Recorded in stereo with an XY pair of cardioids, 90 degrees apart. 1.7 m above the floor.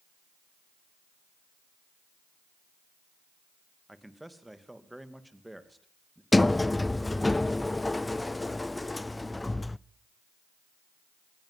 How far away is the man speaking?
About 2.5 m.